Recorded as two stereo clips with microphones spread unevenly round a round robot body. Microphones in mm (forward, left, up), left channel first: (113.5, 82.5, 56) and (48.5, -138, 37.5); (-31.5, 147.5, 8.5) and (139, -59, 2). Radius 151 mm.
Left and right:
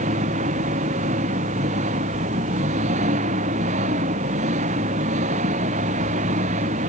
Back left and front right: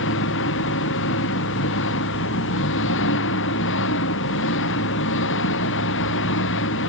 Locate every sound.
0.0 s an engine running: 175° right